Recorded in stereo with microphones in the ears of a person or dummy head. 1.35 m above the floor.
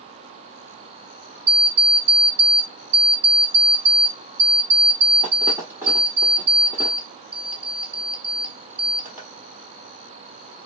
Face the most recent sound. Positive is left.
turn(degrees=-10)  # may be behind; listen again after turning